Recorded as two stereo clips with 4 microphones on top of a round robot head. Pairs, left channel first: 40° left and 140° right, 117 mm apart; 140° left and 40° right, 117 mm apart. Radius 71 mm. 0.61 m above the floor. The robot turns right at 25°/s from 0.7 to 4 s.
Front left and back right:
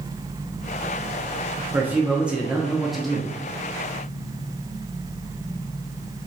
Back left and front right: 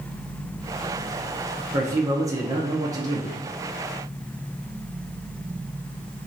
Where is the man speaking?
80° right, 0.6 m; by 3.4 s 40° right, 0.6 m.